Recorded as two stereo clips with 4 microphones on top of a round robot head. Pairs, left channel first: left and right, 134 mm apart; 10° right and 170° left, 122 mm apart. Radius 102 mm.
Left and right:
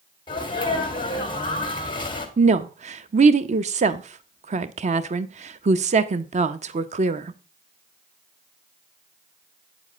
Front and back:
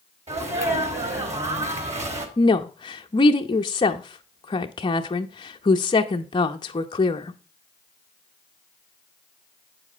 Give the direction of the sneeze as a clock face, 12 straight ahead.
7 o'clock.